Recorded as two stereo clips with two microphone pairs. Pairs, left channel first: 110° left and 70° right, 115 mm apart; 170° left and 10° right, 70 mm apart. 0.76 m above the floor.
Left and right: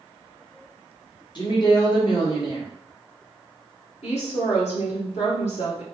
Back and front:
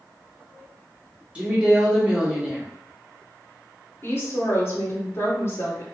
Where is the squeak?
I don't hear a squeak.